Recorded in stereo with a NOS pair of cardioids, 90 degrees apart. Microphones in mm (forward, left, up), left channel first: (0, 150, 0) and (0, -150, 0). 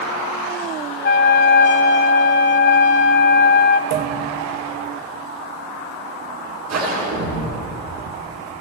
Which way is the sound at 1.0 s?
40° left.